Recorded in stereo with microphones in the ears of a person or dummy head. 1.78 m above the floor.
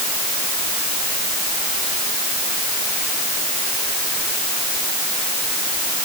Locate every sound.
Only background noise.